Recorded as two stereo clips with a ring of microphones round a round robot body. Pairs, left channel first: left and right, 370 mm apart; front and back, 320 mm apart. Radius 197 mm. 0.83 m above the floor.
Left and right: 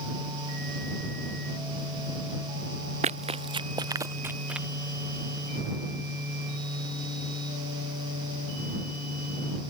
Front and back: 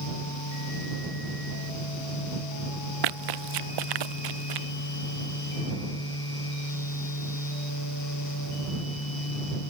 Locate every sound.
3.0 s running footsteps: 165° right; by 4.7 s straight behind